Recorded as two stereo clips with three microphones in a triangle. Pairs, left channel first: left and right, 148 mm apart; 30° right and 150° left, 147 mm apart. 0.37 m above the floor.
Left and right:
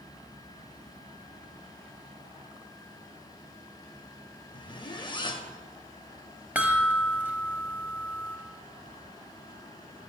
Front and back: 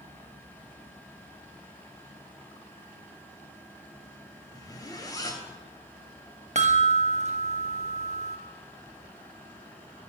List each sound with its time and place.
4.5 s a zipper: 30° left, 0.5 m
6.5 s a chime: 170° right, 0.5 m